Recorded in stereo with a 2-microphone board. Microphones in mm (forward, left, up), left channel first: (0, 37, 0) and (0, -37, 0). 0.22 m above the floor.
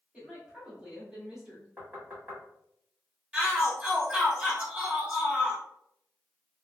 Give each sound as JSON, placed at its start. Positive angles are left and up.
{"t": 0.1, "sound": "a woman speaking", "side_deg": -15, "distance_m": 1.1}
{"t": 1.8, "sound": "knocking", "side_deg": -20, "distance_m": 1.3}
{"t": 3.3, "sound": "a shout", "side_deg": -15, "distance_m": 1.1}